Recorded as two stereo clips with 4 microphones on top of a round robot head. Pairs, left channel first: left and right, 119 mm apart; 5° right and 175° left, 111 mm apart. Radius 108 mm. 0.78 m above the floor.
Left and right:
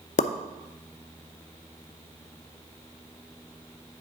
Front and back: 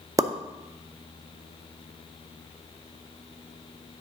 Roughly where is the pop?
Left.